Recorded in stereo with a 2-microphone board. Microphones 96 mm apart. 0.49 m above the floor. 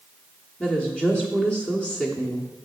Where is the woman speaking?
10° left (ahead or behind), 1.0 m.